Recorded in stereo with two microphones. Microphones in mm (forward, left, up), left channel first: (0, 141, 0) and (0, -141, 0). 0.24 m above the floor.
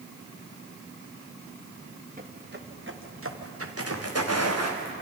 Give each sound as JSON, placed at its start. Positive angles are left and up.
{"t": 2.2, "sound": "footsteps", "side_deg": -30, "distance_m": 1.9}